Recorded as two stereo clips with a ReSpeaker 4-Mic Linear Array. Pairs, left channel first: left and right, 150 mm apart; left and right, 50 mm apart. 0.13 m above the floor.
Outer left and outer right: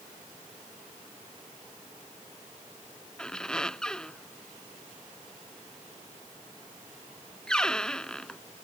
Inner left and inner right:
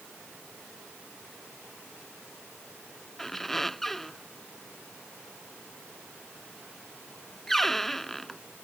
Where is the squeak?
5° left (ahead or behind).